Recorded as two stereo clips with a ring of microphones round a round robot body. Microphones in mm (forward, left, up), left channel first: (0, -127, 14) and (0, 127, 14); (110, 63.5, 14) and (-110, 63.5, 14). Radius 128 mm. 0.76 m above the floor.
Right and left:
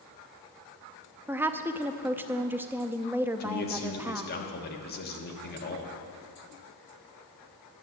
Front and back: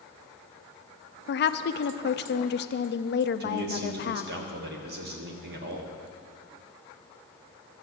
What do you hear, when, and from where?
1.3 s a woman speaking: 10° left, 0.6 m
3.4 s a man speaking: 140° right, 1.4 m